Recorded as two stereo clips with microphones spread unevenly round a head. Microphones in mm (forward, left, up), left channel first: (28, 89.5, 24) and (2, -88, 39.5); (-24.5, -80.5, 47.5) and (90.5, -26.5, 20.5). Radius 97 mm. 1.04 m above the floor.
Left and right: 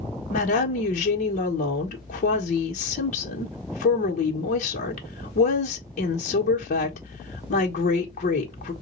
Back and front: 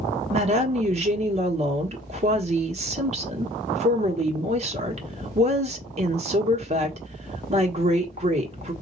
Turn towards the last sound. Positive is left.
turn(degrees=40)